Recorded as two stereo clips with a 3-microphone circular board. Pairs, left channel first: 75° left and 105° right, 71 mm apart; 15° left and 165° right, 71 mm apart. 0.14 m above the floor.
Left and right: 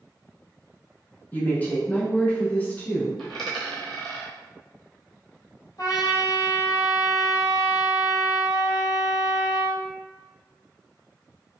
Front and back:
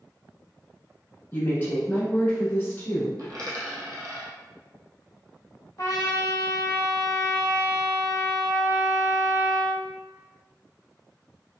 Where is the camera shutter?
No camera shutter in this recording.